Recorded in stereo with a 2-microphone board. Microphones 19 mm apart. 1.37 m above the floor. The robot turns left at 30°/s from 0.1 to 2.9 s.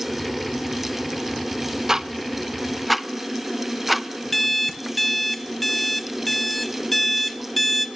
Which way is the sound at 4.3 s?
10° left (ahead or behind).